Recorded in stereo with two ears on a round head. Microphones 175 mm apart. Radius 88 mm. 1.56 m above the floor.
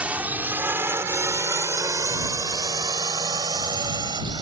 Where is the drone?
5° right (ahead or behind); by 4.4 s 20° right (ahead or behind).